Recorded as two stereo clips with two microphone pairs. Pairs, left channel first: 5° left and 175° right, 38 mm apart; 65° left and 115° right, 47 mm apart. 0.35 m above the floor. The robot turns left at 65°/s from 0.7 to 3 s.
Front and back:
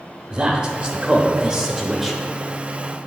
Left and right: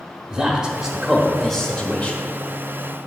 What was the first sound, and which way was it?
A man speaking, 175° right.